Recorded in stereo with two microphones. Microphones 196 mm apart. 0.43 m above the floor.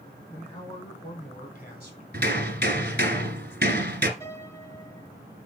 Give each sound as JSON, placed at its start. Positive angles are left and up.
{"t": 0.3, "sound": "a man speaking", "side_deg": 30, "distance_m": 3.5}
{"t": 2.1, "sound": "hammering", "side_deg": -60, "distance_m": 1.7}
{"t": 4.2, "sound": "a piano", "side_deg": 15, "distance_m": 5.5}